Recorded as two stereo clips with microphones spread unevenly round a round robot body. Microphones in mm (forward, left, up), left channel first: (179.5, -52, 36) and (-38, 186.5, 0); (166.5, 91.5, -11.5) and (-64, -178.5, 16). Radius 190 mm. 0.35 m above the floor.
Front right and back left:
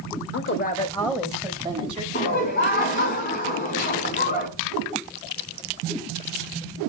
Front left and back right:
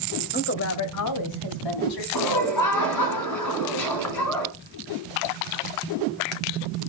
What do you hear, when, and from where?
0.3 s a woman speaking: 5° right, 1.2 m; by 2.0 s 65° left, 2 m
2.1 s laughter: 15° left, 4 m